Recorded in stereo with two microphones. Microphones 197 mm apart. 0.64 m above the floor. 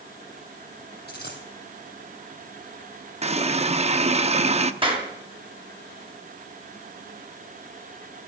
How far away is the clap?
About 3 m.